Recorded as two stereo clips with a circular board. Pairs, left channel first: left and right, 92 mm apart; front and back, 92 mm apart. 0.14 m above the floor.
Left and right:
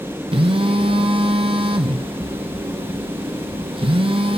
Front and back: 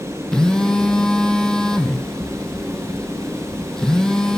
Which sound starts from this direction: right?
A phone buzzing, at 0.3 s.